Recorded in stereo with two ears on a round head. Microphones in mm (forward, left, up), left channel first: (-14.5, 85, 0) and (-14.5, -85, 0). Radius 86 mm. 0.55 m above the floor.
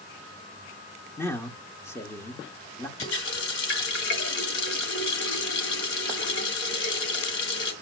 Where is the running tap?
75° left (ahead or behind), 2.5 m.